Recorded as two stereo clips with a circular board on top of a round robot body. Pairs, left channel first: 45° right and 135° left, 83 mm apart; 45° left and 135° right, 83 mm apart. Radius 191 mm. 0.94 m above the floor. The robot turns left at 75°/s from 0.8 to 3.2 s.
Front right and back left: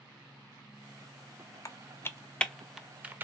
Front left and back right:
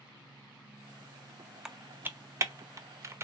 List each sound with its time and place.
1.6 s typing on a keyboard: 55° right, 0.7 m; by 3.2 s 170° right, 0.7 m